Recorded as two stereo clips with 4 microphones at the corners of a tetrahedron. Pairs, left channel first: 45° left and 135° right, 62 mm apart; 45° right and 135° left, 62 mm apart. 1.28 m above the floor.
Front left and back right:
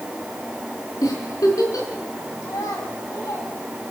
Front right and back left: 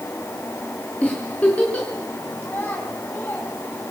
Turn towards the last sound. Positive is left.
turn(degrees=10)